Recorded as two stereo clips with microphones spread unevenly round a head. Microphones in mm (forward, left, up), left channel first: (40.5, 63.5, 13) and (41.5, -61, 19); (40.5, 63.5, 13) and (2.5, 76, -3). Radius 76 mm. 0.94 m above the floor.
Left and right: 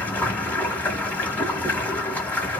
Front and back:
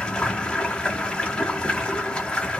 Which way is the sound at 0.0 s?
15° left.